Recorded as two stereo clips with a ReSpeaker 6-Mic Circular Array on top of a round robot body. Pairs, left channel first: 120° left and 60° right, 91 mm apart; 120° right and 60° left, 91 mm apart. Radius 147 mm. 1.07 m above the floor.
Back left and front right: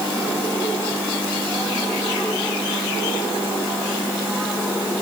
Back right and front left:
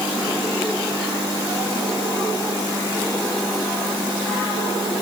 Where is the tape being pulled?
I don't hear tape being pulled.